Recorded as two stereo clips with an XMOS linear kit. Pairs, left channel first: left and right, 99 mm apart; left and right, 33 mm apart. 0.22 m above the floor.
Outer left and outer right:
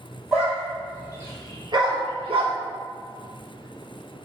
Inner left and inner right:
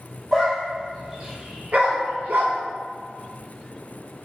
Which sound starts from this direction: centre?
A dog barking, at 0.3 s.